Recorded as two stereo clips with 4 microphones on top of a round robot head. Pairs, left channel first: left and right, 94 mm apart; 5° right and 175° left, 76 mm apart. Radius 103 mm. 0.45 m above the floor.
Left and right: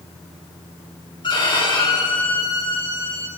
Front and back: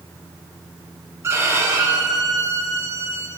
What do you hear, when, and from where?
1.2 s a violin: 125° left, 3.5 m